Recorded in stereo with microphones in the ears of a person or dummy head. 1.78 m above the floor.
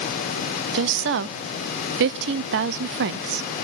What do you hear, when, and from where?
0.7 s a woman speaking: 60° right (ahead or behind), 0.6 m